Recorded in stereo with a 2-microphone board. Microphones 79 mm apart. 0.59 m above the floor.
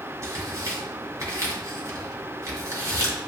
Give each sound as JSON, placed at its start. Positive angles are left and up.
{"t": 0.2, "sound": "tearing paper", "side_deg": -45, "distance_m": 2.0}